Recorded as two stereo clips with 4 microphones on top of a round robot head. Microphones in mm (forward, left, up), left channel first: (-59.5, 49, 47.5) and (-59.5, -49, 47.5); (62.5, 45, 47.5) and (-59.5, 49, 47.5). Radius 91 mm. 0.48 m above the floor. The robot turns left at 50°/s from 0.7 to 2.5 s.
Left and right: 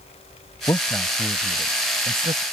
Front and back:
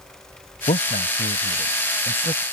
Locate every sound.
0.7 s a man speaking: 25° left; by 2.4 s 65° right